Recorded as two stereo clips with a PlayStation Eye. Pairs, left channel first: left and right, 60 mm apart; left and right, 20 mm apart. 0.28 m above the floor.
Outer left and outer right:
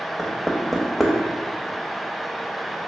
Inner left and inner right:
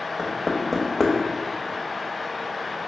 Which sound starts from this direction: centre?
Knocking, at 0.2 s.